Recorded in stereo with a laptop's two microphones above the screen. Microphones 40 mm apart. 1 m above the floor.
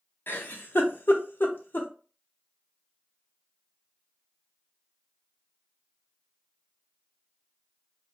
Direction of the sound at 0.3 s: 50° left (ahead or behind).